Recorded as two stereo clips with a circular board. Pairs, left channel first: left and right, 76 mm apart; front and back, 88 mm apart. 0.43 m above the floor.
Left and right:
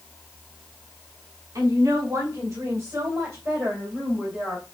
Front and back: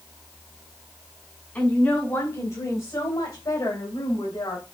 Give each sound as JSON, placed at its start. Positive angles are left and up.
{"t": 1.6, "sound": "a woman speaking", "azimuth_deg": -60, "distance_m": 2.0}